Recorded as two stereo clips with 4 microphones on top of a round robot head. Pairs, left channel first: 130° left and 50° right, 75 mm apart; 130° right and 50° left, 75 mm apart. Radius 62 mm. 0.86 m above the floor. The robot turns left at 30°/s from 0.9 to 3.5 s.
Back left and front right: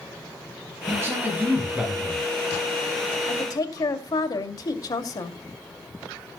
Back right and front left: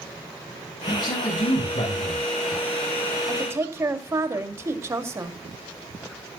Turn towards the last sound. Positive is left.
turn(degrees=100)